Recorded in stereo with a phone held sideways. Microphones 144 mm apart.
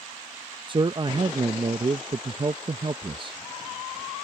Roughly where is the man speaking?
Right.